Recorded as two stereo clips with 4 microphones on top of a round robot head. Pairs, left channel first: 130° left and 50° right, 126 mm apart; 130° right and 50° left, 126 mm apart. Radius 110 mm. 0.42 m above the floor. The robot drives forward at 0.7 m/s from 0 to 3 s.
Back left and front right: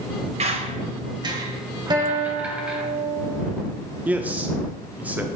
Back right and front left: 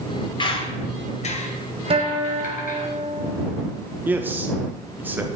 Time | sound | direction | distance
0.4 | a squeak | 80° right | 1.6 m
1.9 | a guitar | 5° left | 2 m
4.0 | a man speaking | 5° left | 1.0 m